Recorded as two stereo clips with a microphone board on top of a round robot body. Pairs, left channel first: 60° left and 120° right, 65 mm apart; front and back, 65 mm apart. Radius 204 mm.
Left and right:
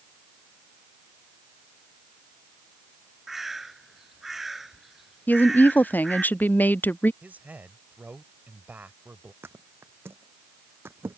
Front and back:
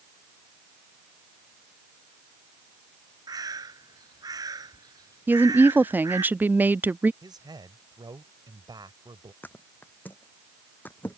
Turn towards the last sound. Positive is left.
turn(degrees=-60)